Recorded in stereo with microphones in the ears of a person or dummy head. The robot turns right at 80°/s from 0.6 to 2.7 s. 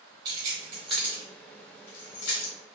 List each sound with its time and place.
0.2 s keys jangling: 25° right (ahead or behind), 1.3 m; by 2.5 s 45° left (ahead or behind), 1.3 m